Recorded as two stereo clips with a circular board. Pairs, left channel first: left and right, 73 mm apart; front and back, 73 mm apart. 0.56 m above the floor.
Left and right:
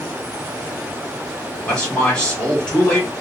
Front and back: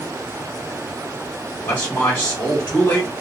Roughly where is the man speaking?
Ahead left.